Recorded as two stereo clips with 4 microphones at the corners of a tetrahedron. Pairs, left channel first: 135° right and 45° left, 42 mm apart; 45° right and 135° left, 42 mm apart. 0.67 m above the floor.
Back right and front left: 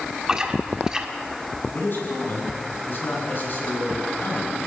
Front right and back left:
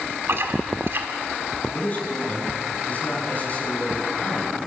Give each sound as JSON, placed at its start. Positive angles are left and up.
{"t": 0.3, "sound": "chewing", "azimuth_deg": 115, "distance_m": 1.7}
{"t": 1.7, "sound": "a man speaking", "azimuth_deg": -100, "distance_m": 6.5}